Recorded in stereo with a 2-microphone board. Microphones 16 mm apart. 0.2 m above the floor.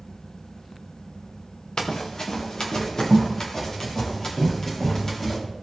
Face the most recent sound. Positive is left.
turn(degrees=30)  # may be behind; listen again after turning